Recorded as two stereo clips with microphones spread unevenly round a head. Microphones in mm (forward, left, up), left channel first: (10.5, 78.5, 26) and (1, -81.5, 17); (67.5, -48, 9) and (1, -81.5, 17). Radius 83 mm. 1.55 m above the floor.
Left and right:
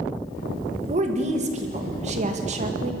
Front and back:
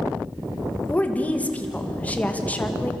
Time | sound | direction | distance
0.9 | a woman speaking | 45° right | 2.5 m